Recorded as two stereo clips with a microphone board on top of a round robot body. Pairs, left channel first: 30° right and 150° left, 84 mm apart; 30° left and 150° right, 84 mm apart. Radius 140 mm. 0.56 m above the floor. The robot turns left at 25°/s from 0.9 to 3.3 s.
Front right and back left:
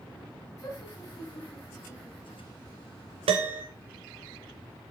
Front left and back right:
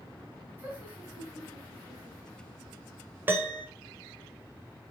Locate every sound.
0.6 s laughter: 85° right, 4.5 m; by 2.5 s 125° right, 4.5 m
3.3 s a piano: 145° left, 0.7 m; by 3.6 s 140° left, 0.7 m